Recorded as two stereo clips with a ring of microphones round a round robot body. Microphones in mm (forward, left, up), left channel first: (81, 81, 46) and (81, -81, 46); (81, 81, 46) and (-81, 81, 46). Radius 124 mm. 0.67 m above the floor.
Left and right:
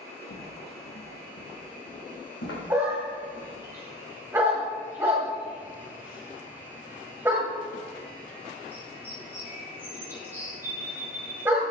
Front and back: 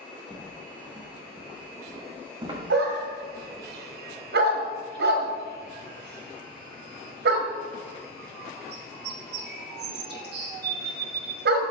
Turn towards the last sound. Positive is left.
turn(degrees=-170)